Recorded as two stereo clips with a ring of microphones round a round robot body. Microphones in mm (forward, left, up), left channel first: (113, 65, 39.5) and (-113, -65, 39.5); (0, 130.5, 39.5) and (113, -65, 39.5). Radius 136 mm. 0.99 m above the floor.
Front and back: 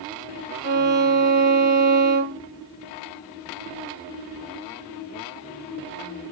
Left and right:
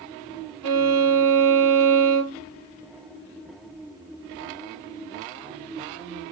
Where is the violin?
90° right, 1.9 m.